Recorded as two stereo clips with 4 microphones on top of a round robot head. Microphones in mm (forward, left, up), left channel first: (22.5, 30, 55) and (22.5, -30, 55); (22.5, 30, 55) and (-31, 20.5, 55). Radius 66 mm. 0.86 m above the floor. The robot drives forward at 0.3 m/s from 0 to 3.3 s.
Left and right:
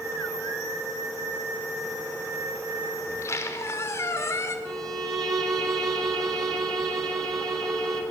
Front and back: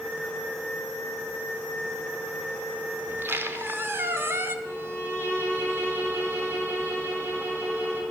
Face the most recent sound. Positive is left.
turn(degrees=-115)